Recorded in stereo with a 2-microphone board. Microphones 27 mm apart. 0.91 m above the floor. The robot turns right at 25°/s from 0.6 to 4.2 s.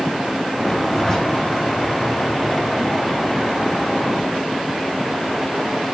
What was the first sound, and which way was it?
A zipper, 20° left (ahead or behind).